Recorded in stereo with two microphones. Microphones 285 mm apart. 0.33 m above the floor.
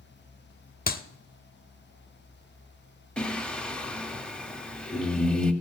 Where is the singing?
5° left (ahead or behind), 0.9 m.